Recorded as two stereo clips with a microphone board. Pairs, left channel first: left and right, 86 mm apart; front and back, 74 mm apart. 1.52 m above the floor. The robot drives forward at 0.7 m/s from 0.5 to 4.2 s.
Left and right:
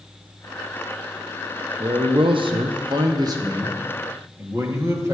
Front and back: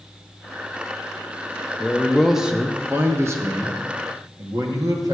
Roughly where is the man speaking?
Right.